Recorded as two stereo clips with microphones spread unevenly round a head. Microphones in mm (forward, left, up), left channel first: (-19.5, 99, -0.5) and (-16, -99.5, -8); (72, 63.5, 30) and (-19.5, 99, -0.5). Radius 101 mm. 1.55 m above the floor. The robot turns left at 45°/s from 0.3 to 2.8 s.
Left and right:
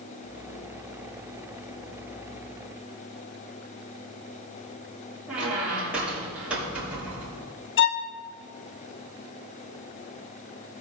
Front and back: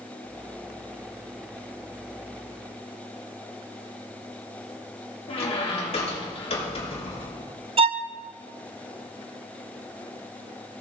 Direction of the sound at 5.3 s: 5° right.